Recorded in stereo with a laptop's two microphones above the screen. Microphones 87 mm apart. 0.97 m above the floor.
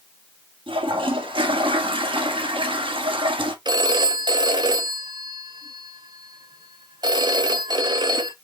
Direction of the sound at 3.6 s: 55° right (ahead or behind).